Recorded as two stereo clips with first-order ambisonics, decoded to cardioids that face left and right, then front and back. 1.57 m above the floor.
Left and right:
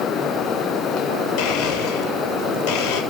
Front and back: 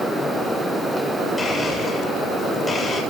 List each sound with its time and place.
1.4 s a blender: 80° left, 7.5 m